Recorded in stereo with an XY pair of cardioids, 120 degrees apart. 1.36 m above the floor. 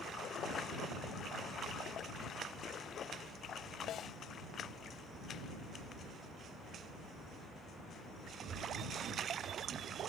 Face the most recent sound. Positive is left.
turn(degrees=60)